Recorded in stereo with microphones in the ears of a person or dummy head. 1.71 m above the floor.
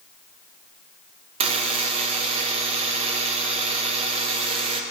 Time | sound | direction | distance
1.4 | a buzzer | 35° right (ahead or behind) | 1.1 m